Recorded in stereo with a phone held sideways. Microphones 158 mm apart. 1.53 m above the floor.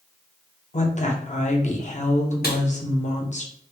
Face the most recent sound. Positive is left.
turn(degrees=75)  # may be behind; listen again after turning